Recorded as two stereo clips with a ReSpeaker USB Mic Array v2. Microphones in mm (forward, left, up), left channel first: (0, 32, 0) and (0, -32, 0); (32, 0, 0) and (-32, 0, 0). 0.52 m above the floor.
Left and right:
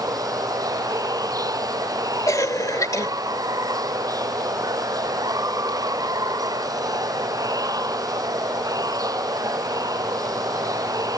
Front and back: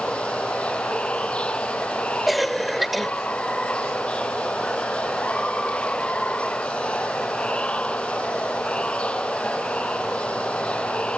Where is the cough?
90° left.